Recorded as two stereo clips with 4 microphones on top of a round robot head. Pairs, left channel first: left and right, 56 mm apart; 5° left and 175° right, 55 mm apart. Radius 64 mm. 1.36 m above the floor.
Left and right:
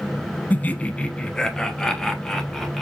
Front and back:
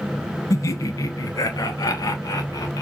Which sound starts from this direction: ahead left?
Laughter, at 0.5 s.